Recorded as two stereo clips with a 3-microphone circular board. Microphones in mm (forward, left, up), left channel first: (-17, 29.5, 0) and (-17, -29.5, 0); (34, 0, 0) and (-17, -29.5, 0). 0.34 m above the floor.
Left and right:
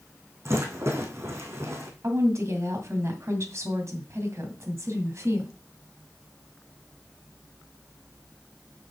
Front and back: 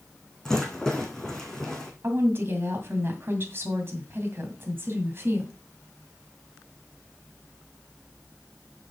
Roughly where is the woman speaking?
Right.